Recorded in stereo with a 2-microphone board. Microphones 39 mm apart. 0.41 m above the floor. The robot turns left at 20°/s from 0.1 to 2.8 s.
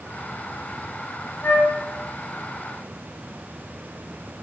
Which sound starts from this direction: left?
A flute, at 1.4 s.